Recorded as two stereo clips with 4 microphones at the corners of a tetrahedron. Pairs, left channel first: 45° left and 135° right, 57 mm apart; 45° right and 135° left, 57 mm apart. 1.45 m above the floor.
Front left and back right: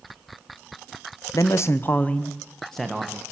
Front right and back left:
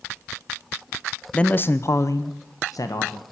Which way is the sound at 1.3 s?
30° left.